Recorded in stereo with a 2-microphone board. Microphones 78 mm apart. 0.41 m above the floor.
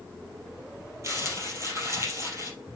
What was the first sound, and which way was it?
Crumpling, 35° right (ahead or behind).